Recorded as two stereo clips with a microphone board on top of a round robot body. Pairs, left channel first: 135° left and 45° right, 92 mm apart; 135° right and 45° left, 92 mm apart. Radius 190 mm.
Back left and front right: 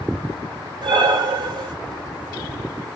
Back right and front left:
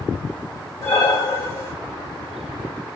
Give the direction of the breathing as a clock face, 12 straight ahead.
3 o'clock.